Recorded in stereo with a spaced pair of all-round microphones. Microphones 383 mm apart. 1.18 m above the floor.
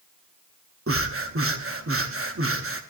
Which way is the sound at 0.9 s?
35° right (ahead or behind).